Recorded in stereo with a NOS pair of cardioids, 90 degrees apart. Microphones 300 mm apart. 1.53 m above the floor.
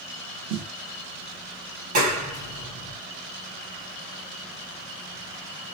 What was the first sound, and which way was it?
A snare drum, 70° right.